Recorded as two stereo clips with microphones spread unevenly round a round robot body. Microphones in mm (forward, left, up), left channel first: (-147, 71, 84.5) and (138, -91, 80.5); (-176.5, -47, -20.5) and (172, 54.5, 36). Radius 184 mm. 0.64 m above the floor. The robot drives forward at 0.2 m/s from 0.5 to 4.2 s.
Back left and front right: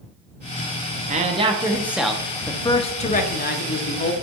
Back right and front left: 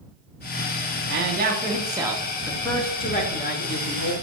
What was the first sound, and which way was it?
A man speaking, 10° right.